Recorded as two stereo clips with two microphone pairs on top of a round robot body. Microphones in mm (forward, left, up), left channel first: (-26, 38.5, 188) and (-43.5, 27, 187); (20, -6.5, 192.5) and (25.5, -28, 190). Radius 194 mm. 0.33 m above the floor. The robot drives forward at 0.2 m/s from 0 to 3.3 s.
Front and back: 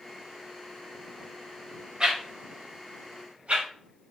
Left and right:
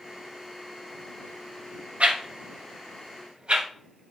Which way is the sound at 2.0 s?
95° right.